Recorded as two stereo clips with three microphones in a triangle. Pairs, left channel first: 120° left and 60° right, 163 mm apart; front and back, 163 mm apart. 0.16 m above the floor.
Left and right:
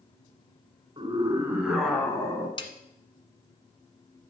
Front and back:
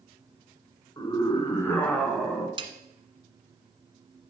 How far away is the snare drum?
About 1.3 m.